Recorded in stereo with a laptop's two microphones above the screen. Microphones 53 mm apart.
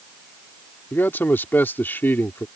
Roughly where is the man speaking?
Left.